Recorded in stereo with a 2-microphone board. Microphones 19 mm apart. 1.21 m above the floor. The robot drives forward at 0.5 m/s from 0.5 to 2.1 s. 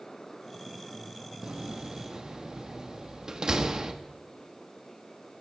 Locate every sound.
1.4 s a door slam: 50° right (ahead or behind), 1.1 m; by 3.9 s 40° right (ahead or behind), 1.3 m